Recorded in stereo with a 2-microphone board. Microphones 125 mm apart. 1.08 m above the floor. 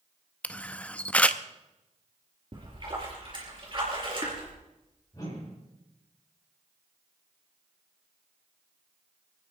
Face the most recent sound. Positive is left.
turn(degrees=30)  # may be behind; listen again after turning